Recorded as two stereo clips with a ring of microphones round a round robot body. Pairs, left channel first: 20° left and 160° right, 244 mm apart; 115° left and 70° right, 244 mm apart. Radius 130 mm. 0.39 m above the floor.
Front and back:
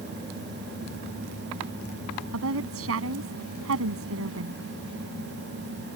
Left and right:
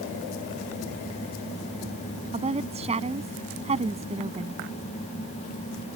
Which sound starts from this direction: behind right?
A woman speaking, at 2.3 s.